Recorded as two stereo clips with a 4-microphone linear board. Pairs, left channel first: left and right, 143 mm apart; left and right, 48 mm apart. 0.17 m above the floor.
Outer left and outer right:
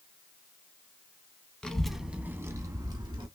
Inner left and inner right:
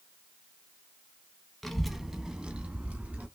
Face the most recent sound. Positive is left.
turn(degrees=-30)  # may be behind; listen again after turning